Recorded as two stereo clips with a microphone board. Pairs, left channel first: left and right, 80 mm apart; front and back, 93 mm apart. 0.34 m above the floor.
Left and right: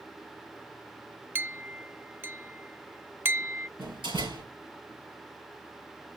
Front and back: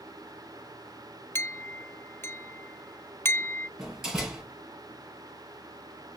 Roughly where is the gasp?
I don't hear a gasp.